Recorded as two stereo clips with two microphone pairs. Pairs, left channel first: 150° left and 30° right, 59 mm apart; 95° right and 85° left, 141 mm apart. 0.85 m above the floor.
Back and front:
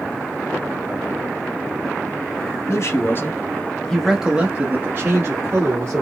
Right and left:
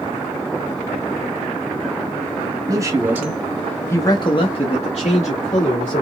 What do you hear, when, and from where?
2.7 s a man speaking: 140° left, 1.2 m; by 6.0 s 70° right, 2 m